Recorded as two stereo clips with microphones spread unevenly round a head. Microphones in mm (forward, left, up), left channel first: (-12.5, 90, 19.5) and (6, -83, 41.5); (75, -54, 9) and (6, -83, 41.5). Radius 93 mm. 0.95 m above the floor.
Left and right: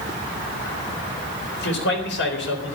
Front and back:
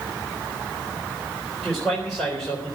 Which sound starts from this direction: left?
A man speaking, at 1.6 s.